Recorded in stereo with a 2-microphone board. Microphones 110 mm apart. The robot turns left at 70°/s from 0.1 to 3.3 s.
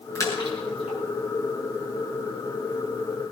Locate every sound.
0.1 s a splash: 25° left (ahead or behind), 6 m; by 1.0 s 75° left (ahead or behind), 6 m